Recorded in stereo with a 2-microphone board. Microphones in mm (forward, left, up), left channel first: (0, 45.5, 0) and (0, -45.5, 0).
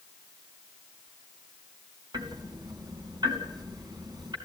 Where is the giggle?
I don't hear a giggle.